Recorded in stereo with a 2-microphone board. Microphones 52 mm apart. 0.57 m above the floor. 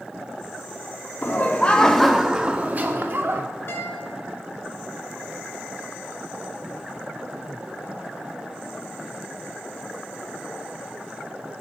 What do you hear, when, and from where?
1.2 s laughter: 40° left (ahead or behind), 0.9 m; by 3.4 s 55° right (ahead or behind), 1.1 m
3.7 s a guitar: 50° left (ahead or behind), 3 m